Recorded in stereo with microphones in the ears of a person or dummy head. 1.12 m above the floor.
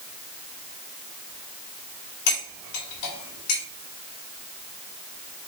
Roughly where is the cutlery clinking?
Left.